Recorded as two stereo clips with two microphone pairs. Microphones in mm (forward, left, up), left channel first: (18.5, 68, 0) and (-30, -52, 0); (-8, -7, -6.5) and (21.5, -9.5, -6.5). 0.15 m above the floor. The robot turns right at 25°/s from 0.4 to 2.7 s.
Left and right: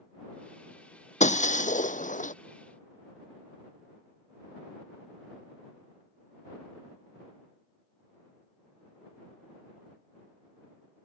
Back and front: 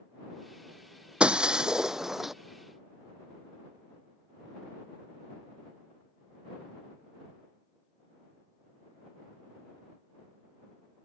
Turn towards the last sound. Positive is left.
turn(degrees=85)